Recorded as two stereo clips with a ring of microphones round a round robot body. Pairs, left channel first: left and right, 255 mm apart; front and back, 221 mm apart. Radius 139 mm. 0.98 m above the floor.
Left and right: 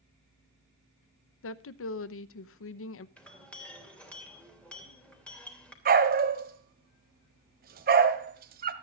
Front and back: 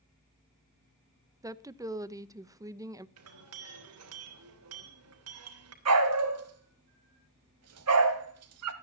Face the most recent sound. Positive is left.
turn(degrees=-145)